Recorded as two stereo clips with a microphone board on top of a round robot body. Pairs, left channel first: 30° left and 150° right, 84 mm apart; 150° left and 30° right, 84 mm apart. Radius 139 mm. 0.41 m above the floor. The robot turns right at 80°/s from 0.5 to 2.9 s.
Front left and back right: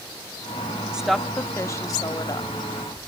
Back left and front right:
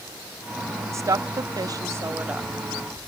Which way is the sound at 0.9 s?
75° right.